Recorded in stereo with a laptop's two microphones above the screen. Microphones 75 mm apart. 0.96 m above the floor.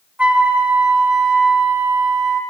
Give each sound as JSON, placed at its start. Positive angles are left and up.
{"t": 0.2, "sound": "a flute", "side_deg": -20, "distance_m": 1.0}